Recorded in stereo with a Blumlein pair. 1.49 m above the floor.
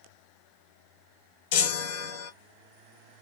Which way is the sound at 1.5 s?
50° left.